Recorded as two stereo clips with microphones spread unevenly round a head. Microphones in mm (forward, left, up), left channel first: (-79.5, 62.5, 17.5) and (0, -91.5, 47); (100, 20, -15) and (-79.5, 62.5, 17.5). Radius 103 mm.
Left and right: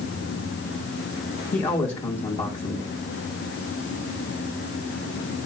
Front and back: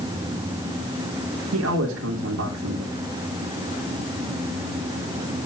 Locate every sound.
1.5 s a man speaking: 170° left, 3 m